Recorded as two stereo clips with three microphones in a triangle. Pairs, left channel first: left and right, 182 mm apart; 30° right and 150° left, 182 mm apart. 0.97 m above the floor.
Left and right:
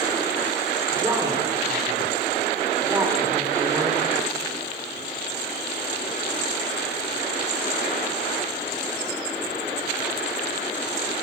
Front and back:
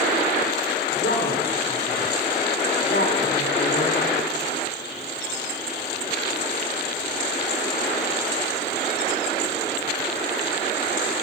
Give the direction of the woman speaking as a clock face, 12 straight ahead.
1 o'clock.